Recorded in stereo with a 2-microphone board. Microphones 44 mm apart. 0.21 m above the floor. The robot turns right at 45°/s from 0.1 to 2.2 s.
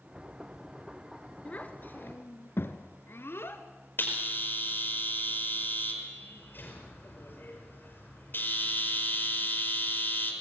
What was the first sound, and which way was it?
A child speaking, 30° left (ahead or behind).